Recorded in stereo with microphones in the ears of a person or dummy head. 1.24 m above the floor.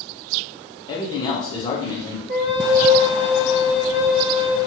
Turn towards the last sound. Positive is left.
turn(degrees=-35)  # may be behind; listen again after turning